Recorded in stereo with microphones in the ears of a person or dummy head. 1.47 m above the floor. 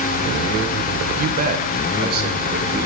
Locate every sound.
1.2 s a man speaking: 50° right (ahead or behind), 0.7 m; by 2.9 s 55° right (ahead or behind), 2 m